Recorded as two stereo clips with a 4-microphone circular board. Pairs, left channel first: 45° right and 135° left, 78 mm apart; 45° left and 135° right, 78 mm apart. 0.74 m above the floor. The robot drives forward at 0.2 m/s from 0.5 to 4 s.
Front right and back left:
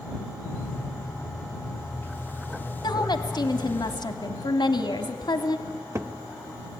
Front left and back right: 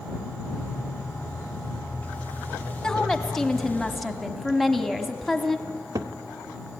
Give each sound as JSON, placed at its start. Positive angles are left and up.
{"t": 2.8, "sound": "a woman speaking", "azimuth_deg": -35, "distance_m": 1.4}
{"t": 5.7, "sound": "a cupboard door", "azimuth_deg": -175, "distance_m": 0.6}